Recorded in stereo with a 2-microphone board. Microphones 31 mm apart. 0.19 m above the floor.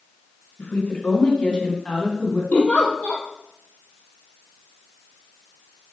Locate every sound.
0.6 s a woman speaking: 50° left (ahead or behind), 2.5 m; by 2.4 s 10° left (ahead or behind), 1.8 m
2.5 s a giggle: 45° left (ahead or behind), 1.8 m